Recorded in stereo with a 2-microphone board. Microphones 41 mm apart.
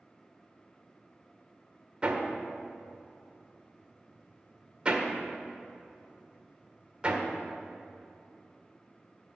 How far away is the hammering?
About 1.6 m.